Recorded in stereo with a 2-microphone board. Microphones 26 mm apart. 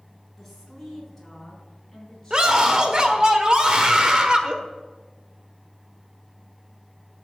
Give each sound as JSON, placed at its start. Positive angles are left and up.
{"t": 0.4, "sound": "a woman speaking", "side_deg": 5, "distance_m": 4.5}
{"t": 2.3, "sound": "a scream", "side_deg": -35, "distance_m": 1.3}